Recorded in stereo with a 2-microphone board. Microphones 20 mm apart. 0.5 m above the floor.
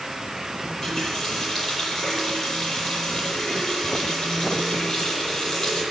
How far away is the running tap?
About 10 m.